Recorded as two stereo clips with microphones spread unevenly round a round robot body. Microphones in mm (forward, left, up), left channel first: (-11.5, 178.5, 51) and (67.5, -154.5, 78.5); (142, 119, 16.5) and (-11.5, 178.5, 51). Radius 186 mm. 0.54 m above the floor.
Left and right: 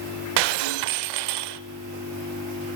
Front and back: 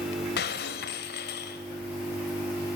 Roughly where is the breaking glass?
Ahead right.